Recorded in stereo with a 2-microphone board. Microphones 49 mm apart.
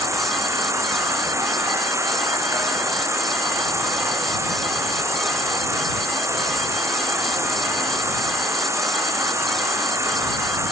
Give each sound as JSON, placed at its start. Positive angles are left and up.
{"t": 0.0, "sound": "an insect", "side_deg": -75}